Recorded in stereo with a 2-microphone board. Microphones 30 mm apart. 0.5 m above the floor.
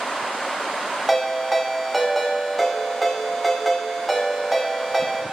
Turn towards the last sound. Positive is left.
turn(degrees=0)  # may be behind; listen again after turning